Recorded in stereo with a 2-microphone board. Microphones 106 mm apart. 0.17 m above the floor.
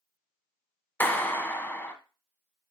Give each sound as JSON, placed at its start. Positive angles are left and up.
{"t": 1.0, "sound": "a clap", "side_deg": 20, "distance_m": 1.1}